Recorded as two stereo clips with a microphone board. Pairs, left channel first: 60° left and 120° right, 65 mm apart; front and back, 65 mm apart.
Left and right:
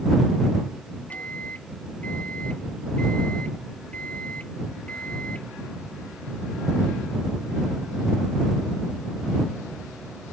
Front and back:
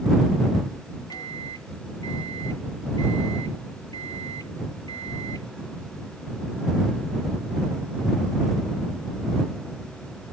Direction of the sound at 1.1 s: 10° right.